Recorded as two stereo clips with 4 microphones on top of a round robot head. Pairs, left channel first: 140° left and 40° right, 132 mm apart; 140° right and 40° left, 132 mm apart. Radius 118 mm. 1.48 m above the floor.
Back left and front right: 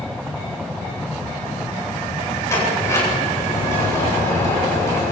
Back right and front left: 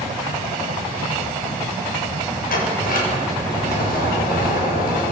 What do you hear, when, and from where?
2.5 s a sliding door: 150° right, 8.5 m